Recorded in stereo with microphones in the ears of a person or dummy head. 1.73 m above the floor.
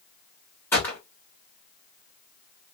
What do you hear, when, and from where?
0.7 s a gunshot: 10° left (ahead or behind), 1.8 m